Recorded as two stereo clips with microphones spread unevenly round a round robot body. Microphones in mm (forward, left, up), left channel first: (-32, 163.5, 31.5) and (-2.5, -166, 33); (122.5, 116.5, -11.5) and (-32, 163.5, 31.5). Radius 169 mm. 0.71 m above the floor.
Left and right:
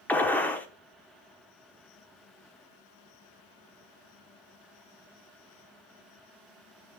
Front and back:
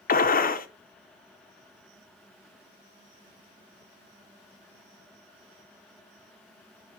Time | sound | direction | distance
0.1 | a gunshot | 10° left | 1.0 m